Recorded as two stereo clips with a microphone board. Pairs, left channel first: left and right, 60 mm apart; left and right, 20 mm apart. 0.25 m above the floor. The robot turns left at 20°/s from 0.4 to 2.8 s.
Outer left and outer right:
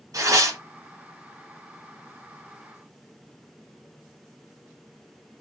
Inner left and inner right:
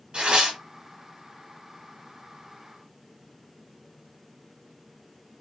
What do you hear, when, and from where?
0.1 s tearing paper: 60° right (ahead or behind), 1.9 m; by 0.6 s 55° right (ahead or behind), 1.9 m